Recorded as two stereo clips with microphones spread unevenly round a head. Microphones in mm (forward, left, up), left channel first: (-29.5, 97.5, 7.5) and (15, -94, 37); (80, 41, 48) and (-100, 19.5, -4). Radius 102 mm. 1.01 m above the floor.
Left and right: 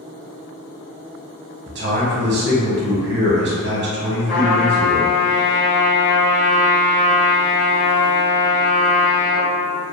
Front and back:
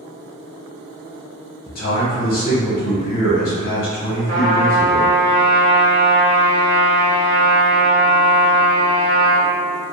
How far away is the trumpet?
About 1.0 m.